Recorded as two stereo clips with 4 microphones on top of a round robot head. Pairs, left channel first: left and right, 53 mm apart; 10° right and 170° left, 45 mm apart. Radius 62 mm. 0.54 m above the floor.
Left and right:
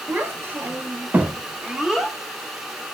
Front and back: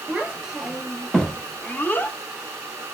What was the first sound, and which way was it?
A child speaking, 130° right.